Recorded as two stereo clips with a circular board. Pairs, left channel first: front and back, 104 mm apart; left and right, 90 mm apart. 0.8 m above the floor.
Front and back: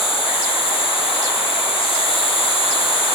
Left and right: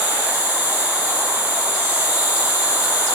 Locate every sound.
0.0 s an insect: 20° right, 0.7 m